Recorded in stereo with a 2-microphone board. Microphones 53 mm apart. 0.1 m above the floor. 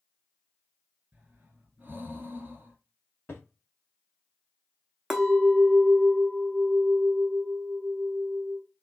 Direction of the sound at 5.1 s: 10° right (ahead or behind).